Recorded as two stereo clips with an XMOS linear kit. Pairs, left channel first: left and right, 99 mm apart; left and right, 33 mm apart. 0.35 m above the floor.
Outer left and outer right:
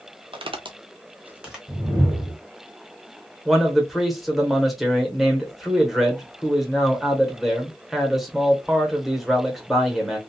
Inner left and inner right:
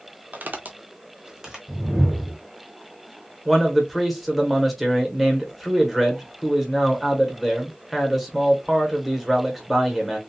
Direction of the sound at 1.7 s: 15° right (ahead or behind).